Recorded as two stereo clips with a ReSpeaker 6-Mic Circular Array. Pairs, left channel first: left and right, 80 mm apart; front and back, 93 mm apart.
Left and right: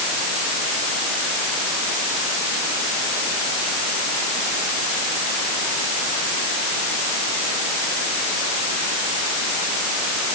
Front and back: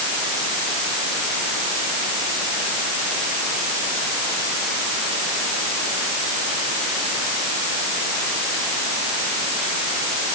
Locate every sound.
Only background noise.